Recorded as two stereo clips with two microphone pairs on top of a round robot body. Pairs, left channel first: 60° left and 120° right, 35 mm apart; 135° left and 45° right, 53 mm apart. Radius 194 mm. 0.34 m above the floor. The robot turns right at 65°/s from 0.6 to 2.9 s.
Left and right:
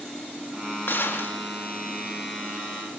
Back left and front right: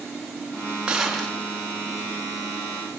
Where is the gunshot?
30° left, 3.5 m; by 1.4 s 65° left, 3.5 m.